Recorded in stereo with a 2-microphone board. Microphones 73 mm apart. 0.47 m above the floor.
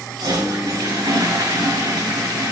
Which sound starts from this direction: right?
A toilet flushing, at 0.2 s.